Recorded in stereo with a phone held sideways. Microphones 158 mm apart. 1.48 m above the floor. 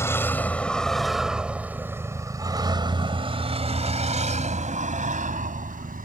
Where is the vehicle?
15° left (ahead or behind); by 6.0 s 60° right (ahead or behind).